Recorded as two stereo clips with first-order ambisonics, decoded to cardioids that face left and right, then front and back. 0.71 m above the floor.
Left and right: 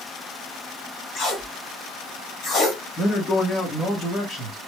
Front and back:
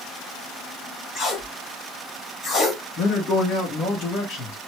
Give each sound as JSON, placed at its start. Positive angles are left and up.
{"t": 1.1, "sound": "tape being pulled", "azimuth_deg": 40, "distance_m": 1.4}
{"t": 3.0, "sound": "a man speaking", "azimuth_deg": 25, "distance_m": 1.8}